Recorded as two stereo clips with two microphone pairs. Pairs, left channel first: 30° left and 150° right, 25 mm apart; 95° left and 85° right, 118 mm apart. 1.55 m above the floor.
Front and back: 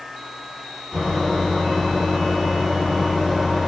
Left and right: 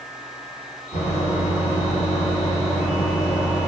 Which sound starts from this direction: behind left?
A microwave, at 0.9 s.